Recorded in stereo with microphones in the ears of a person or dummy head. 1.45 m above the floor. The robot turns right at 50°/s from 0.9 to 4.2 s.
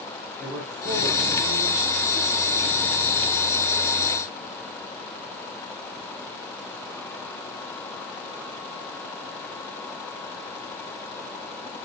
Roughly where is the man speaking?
Behind.